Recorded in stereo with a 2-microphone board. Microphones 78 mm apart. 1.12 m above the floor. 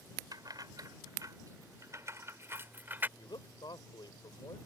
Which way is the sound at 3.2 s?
75° left (ahead or behind).